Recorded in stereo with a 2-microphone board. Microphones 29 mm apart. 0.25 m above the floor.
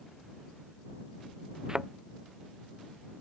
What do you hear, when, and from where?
1.7 s a thud: 20° right (ahead or behind)